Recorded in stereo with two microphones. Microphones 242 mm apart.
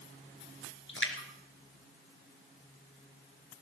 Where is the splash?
60° left (ahead or behind), 3 m.